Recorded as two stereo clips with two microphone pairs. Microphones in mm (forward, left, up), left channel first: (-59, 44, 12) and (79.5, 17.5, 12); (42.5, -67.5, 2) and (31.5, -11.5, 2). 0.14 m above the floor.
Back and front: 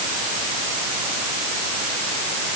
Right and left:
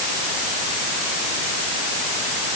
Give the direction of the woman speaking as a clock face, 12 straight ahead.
I don't hear a woman speaking.